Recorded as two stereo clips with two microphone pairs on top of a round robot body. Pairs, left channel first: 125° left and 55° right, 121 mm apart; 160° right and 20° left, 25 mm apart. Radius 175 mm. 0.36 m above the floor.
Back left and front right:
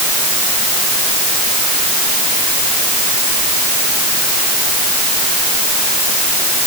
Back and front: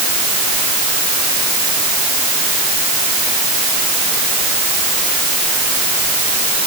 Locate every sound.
Only background noise.